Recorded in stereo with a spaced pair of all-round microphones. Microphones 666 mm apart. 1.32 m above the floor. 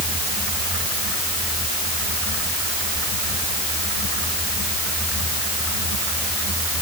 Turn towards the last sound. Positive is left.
No sound to turn to.